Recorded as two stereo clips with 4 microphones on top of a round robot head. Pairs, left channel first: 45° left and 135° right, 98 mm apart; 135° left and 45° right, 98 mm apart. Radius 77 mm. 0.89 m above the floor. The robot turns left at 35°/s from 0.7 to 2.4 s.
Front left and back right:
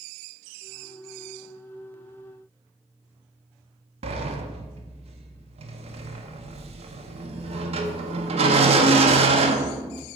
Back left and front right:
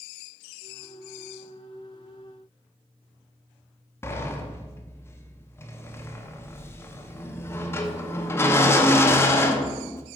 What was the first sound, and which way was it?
A sliding door, 155° right.